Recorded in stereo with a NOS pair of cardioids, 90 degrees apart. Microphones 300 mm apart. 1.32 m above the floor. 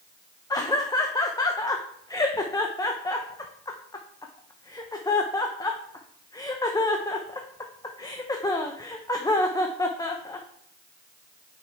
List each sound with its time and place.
0.5 s laughter: 15° left, 0.7 m